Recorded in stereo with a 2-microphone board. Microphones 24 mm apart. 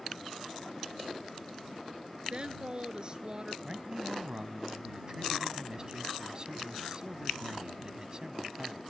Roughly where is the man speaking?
Right.